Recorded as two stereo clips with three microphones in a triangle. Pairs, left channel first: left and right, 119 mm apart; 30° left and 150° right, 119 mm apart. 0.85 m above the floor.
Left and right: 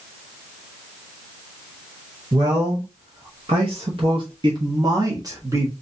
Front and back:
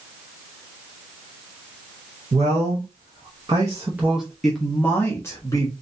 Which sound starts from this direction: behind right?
A man speaking, at 2.3 s.